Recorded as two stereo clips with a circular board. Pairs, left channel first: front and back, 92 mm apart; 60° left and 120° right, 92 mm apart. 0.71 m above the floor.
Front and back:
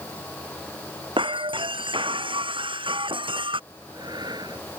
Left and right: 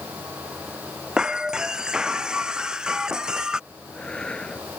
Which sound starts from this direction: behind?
Breaking glass, at 1.2 s.